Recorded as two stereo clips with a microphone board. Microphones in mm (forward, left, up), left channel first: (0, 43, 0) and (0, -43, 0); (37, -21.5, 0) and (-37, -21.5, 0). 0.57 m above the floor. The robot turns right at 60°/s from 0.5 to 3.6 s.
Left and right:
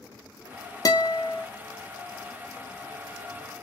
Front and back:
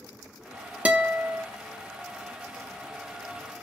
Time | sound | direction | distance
0.8 | a guitar | 115° left | 0.6 m